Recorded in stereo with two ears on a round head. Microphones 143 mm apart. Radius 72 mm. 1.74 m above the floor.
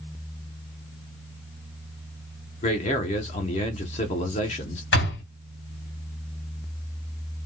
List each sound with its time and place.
2.6 s a man speaking: 40° left (ahead or behind), 0.9 m
4.9 s a door slam: 70° left (ahead or behind), 2.5 m